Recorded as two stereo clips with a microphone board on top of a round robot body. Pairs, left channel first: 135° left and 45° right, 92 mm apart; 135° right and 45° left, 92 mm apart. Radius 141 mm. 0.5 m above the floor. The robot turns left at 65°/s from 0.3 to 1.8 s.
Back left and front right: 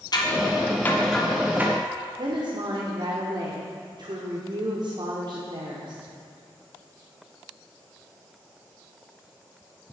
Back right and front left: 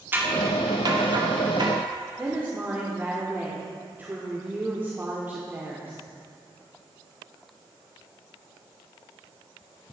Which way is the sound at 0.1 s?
110° left.